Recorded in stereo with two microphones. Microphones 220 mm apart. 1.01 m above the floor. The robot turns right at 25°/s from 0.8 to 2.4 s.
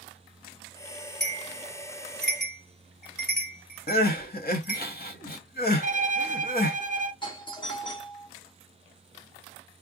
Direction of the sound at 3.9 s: 45° left (ahead or behind).